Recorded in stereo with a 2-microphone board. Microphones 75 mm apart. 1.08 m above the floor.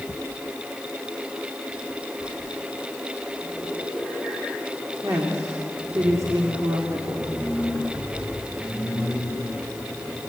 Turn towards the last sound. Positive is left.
turn(degrees=-50)  # may be behind; listen again after turning